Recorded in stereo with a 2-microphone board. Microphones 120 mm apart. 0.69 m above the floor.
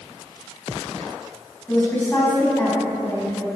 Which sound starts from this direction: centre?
A woman speaking, at 1.7 s.